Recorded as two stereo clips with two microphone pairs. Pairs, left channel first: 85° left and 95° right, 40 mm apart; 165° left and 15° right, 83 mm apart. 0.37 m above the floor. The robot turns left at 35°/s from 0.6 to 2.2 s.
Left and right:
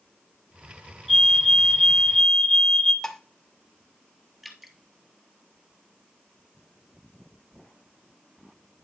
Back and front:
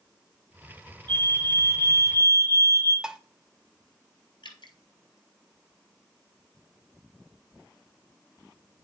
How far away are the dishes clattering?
About 0.7 m.